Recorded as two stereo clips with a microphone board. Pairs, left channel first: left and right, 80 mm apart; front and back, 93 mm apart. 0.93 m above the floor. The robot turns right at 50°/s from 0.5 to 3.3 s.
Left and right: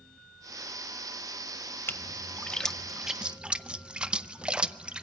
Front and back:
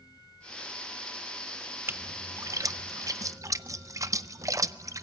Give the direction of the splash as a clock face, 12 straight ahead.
8 o'clock.